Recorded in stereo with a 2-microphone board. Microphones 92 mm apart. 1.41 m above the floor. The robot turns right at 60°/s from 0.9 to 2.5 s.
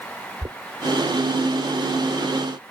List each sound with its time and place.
0.4 s knocking: 40° right (ahead or behind)